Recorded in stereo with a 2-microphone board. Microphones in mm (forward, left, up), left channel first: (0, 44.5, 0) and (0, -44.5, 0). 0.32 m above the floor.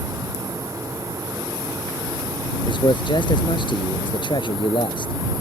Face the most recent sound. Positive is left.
turn(degrees=65)  # may be behind; listen again after turning